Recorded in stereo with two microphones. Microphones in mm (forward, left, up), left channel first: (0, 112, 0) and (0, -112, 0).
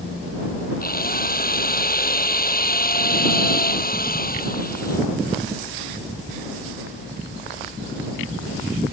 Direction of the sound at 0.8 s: 40° left (ahead or behind).